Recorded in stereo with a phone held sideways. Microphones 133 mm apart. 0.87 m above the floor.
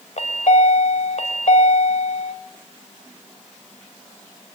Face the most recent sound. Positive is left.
turn(degrees=60)  # may be behind; listen again after turning